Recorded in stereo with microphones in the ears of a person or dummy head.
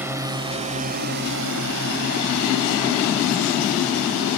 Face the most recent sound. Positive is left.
turn(degrees=-75)  # may be behind; listen again after turning